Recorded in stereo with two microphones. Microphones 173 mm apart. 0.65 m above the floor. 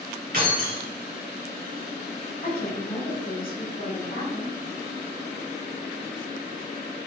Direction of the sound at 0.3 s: 55° right (ahead or behind).